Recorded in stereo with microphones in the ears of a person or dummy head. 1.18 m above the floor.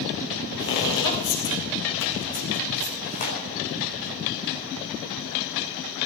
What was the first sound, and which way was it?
Footsteps, 65° left (ahead or behind).